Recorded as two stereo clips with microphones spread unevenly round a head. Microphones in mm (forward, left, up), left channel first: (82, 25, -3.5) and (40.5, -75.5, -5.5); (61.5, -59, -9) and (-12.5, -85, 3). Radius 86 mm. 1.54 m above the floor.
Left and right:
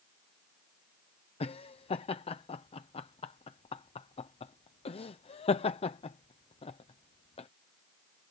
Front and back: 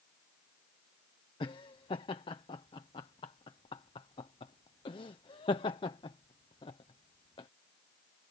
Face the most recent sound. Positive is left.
turn(degrees=40)